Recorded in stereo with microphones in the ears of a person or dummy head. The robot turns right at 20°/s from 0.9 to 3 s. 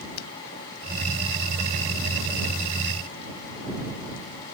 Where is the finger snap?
80° left.